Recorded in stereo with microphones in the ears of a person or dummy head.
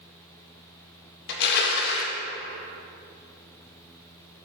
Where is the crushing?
65° left (ahead or behind), 0.7 m.